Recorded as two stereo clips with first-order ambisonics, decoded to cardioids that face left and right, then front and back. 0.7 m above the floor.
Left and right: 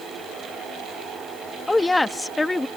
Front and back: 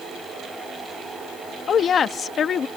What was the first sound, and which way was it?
A woman speaking, 15° left.